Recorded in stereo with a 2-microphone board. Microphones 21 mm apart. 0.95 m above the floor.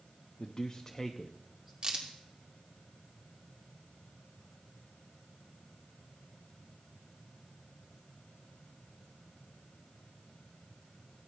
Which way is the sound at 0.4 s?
40° left (ahead or behind).